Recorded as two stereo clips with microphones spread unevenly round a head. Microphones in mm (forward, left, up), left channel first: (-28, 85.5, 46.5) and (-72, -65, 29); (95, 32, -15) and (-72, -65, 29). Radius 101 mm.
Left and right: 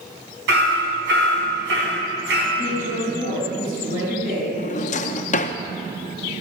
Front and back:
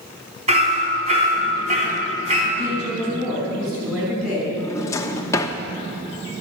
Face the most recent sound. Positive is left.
turn(degrees=110)